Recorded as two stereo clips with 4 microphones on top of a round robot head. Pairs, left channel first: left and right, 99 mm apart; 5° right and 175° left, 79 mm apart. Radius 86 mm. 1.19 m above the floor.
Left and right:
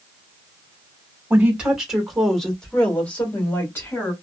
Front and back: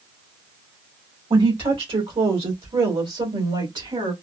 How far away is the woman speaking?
About 1.8 m.